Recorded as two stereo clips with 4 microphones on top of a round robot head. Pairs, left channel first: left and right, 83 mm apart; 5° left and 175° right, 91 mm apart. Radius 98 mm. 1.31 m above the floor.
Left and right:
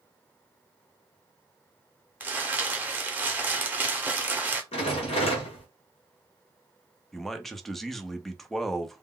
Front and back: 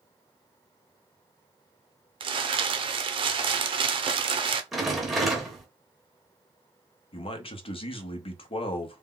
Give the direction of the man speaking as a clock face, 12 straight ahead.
12 o'clock.